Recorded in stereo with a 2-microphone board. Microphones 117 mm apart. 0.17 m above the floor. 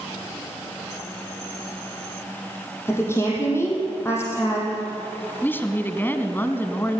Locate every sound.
2.9 s a woman speaking: 20° left (ahead or behind), 5 m
5.4 s a woman speaking: 20° left (ahead or behind), 1.3 m